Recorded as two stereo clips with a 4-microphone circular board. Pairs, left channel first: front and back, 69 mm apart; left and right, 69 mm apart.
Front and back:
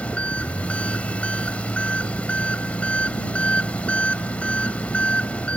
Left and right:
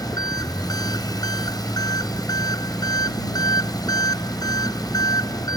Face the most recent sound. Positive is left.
turn(degrees=75)